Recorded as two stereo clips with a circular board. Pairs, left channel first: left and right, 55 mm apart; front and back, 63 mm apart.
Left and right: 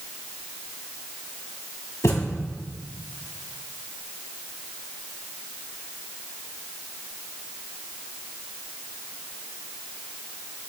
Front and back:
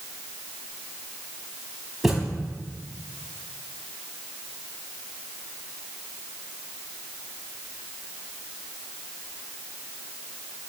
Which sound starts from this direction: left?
A thud, at 2.0 s.